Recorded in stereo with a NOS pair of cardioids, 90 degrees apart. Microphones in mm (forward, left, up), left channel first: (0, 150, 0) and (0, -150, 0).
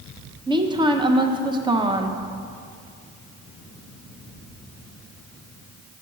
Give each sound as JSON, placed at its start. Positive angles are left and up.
{"t": 0.5, "sound": "a woman speaking", "azimuth_deg": -15, "distance_m": 0.6}